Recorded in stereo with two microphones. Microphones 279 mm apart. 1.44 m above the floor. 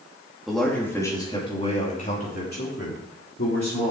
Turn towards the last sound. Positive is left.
turn(degrees=50)  # may be behind; listen again after turning